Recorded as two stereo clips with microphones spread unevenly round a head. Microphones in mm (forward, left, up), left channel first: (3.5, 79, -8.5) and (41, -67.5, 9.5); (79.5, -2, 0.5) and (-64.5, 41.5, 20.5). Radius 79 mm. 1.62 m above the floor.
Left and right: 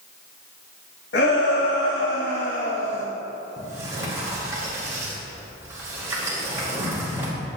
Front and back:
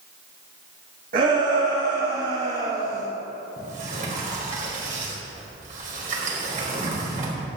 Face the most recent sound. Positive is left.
turn(degrees=-150)